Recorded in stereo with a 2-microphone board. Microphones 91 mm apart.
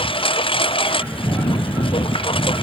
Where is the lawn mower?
90° left; by 2.6 s 85° left.